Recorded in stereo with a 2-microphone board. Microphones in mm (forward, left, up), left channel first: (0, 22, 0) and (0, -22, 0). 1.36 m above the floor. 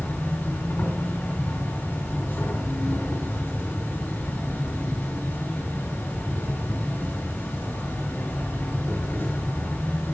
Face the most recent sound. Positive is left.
turn(degrees=70)  # may be behind; listen again after turning